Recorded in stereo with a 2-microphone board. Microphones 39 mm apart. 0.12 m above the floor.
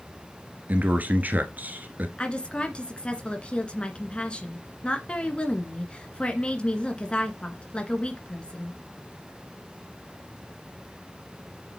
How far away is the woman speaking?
About 1.8 m.